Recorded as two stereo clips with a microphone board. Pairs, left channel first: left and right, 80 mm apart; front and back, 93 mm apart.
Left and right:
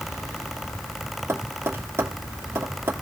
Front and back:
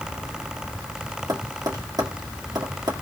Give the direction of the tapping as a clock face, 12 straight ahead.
5 o'clock.